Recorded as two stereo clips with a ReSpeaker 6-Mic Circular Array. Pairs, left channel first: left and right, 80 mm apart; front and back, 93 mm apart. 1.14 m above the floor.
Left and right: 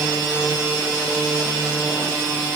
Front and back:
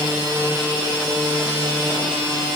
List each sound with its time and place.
Only background noise.